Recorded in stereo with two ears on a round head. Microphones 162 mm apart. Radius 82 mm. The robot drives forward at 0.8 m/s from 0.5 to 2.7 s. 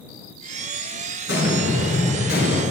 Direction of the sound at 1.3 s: 65° left (ahead or behind).